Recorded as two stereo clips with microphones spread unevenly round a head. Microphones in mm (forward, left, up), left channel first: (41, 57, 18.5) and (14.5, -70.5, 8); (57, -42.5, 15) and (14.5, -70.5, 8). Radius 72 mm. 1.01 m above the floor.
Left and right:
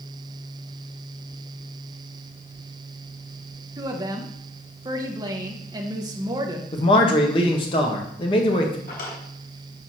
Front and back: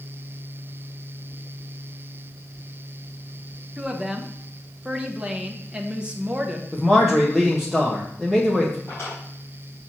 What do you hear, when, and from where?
3.8 s a woman speaking: 105° right, 0.8 m
6.7 s a man speaking: 130° left, 1.3 m
8.9 s a drawer: 110° left, 3.5 m